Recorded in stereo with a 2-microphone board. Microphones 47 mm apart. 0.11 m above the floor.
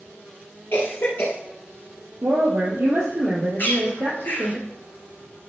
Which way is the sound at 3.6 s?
45° left (ahead or behind).